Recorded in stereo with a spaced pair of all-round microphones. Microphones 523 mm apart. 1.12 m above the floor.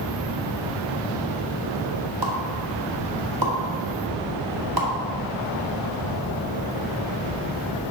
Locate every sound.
2.2 s a pop: 45° right (ahead or behind), 1.5 m